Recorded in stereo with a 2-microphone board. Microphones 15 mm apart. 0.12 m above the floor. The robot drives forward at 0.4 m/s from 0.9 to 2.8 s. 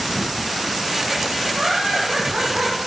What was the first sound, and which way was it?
Laughter, 60° right (ahead or behind).